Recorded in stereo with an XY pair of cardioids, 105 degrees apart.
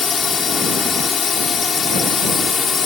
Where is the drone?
40° left.